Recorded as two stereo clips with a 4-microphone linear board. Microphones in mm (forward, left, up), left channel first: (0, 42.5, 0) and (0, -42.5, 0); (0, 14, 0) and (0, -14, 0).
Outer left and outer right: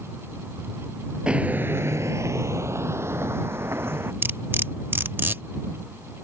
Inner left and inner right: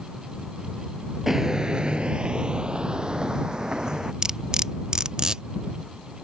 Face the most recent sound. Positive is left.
turn(degrees=-25)  # may be behind; listen again after turning